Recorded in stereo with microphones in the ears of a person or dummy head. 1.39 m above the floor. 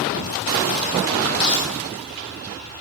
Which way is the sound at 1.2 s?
65° left (ahead or behind).